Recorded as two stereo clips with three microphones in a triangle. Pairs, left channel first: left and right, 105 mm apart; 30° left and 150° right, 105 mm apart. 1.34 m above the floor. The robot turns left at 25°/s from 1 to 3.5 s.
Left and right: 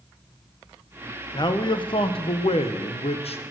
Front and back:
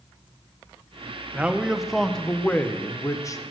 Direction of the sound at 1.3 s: 135° left.